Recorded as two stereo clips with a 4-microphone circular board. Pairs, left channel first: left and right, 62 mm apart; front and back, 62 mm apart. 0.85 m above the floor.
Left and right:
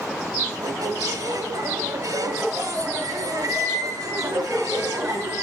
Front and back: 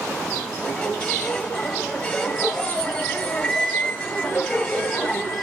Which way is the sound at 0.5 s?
80° right.